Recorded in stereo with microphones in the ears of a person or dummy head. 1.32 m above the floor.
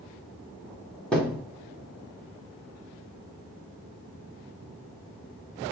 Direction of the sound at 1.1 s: 5° left (ahead or behind).